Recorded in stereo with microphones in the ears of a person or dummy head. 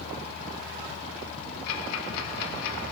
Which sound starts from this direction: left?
Ticking, at 1.7 s.